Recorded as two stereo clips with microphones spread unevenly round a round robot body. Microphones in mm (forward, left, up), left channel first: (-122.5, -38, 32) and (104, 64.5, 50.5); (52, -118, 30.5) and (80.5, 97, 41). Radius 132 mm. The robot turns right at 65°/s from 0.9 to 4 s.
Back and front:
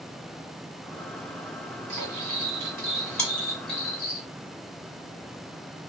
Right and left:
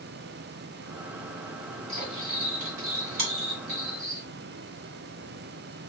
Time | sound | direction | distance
1.9 | cutlery clinking | 20° left | 1.6 m
3.2 | chewing | 120° left | 2 m